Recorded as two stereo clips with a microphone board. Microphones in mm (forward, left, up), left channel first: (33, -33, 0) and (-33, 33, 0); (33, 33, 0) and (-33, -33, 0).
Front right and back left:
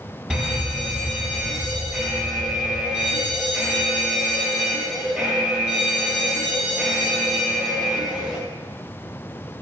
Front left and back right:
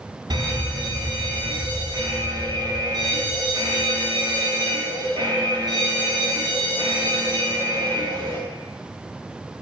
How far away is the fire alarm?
About 3.5 m.